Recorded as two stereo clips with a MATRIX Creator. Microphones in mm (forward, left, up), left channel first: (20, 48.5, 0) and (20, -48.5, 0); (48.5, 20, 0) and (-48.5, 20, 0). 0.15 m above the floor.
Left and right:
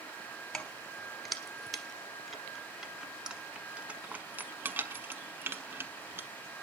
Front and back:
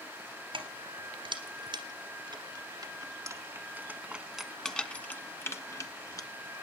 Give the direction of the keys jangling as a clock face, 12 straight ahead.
6 o'clock.